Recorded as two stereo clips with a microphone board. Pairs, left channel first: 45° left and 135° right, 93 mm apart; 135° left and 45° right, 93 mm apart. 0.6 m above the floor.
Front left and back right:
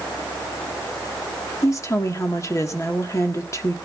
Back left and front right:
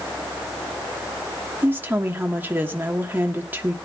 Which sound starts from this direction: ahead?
A woman speaking, at 1.6 s.